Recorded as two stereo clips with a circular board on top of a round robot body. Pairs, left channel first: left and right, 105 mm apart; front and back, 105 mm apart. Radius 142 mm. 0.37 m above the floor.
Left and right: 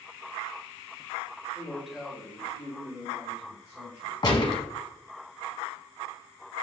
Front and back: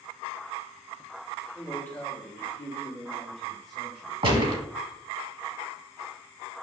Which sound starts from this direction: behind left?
A gunshot, at 4.2 s.